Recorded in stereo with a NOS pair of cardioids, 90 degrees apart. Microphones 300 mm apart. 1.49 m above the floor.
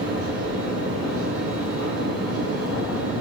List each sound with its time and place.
0.0 s a fan: 50° right, 3.5 m